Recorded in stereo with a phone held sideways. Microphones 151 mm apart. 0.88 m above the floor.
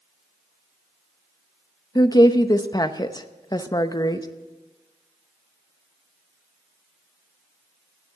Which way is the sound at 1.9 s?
25° left (ahead or behind).